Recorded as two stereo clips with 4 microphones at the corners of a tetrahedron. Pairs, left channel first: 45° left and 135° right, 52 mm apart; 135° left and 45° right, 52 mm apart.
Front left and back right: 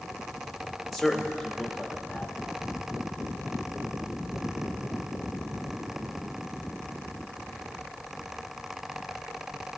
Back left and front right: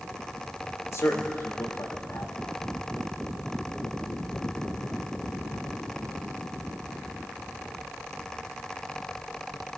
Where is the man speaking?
135° left, 1.6 m.